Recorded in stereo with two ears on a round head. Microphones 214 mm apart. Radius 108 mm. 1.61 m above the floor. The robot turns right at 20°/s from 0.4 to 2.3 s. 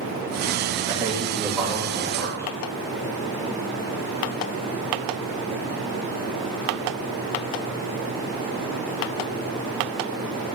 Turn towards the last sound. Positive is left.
turn(degrees=10)  # may be behind; listen again after turning